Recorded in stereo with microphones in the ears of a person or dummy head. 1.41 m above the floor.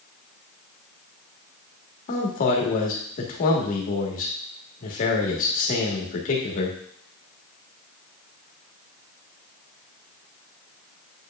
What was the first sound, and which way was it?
A man speaking, 45° left (ahead or behind).